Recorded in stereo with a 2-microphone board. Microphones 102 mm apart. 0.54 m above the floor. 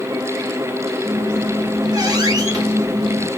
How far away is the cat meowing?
I don't hear a cat meowing.